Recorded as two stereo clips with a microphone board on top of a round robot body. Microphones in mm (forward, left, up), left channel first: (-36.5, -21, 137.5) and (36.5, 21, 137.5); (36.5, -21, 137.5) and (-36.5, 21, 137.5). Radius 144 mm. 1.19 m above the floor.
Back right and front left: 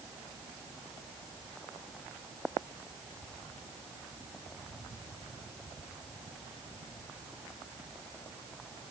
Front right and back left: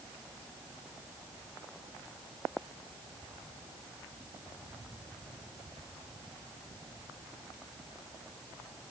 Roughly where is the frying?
No frying in this recording.